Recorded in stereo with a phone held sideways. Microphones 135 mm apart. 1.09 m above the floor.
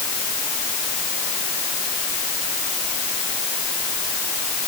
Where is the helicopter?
No helicopter in this recording.